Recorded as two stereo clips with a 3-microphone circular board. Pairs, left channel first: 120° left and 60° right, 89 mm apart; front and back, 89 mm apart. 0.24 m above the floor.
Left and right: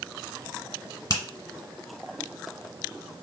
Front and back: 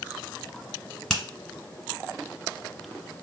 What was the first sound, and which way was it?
A finger snap, 85° left.